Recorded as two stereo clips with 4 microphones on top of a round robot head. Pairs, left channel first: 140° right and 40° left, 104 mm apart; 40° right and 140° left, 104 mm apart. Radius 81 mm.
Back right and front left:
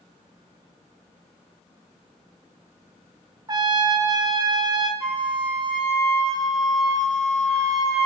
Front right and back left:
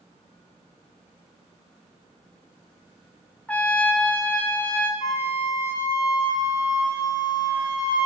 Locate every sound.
3.5 s a trumpet: 30° left, 1.4 m
5.0 s a flute: 50° right, 3.5 m